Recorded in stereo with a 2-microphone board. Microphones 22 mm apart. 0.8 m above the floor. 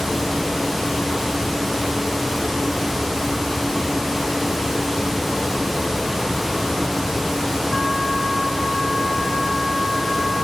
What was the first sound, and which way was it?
Only background noise.